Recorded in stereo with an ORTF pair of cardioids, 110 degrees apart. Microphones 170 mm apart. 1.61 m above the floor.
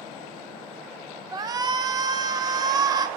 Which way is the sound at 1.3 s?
25° right.